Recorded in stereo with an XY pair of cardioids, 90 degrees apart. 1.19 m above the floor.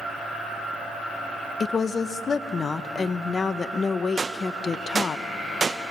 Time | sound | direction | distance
1.6 | a woman speaking | 45° left | 0.9 m
4.2 | a gunshot | 35° right | 1.0 m